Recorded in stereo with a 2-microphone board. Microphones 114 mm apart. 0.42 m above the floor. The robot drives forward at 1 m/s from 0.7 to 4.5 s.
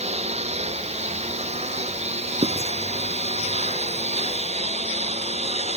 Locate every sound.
0.0 s a lawn mower: 75° right (ahead or behind); by 5.8 s 80° right
2.4 s writing: 65° right (ahead or behind); by 2.7 s 60° right (ahead or behind)